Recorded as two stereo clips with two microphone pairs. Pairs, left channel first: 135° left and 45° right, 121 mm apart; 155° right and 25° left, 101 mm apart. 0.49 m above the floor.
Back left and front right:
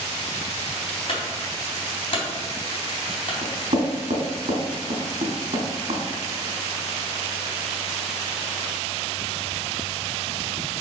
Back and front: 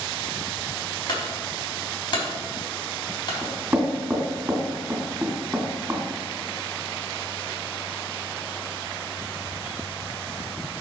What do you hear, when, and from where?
1.1 s a clunk: 170° left, 3.5 m
3.4 s knocking: 45° right, 3 m